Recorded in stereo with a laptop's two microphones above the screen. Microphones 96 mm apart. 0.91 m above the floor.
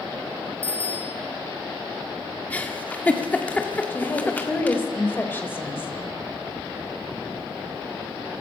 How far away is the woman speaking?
About 4.5 m.